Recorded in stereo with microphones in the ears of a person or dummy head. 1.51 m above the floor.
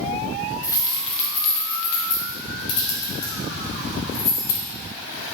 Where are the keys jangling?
20° left (ahead or behind), 1.1 m; by 4.6 s 80° left, 3.5 m.